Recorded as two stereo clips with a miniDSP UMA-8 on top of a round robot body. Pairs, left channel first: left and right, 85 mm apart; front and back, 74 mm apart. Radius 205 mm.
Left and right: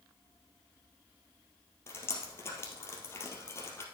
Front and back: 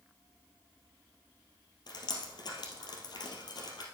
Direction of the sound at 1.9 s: 30° left.